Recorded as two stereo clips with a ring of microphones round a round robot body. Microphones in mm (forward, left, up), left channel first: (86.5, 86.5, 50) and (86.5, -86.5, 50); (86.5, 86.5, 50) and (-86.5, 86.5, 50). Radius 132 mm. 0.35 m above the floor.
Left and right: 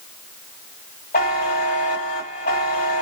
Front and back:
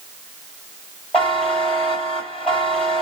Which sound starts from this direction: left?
A buzzer, at 1.1 s.